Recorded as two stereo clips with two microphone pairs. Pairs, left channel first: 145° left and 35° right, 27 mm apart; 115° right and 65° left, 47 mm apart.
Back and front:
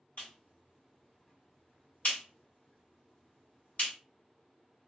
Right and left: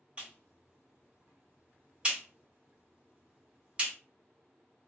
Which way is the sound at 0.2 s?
125° left.